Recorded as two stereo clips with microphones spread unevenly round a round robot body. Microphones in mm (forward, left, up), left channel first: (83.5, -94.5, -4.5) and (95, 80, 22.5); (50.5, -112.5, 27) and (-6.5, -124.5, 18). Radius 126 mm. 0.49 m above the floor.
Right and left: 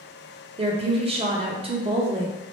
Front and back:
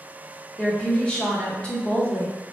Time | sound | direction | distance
0.6 | a woman speaking | 80° left | 0.7 m